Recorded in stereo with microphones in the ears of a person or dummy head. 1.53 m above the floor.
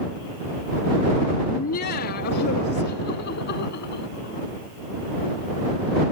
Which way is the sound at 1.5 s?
45° left (ahead or behind).